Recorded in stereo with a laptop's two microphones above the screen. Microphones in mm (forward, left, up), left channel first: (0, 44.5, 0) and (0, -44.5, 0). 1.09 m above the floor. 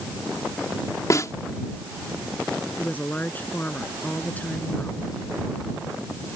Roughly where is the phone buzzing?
No phone buzzing in this recording.